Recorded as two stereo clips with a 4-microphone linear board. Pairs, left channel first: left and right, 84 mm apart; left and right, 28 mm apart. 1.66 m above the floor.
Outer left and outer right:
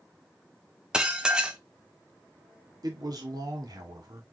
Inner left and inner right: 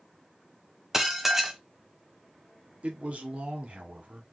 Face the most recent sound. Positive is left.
turn(degrees=-50)  # may be behind; listen again after turning